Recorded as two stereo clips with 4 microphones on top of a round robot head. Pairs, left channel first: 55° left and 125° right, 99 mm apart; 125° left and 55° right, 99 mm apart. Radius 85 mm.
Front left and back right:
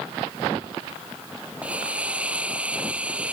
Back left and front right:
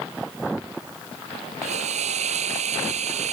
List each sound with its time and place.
1.6 s a hiss: 50° right